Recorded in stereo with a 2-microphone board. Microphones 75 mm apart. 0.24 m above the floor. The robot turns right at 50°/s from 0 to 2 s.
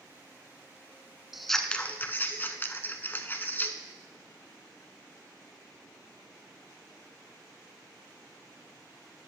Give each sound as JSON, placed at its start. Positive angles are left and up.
{"t": 1.3, "sound": "scissors", "azimuth_deg": -5, "distance_m": 0.7}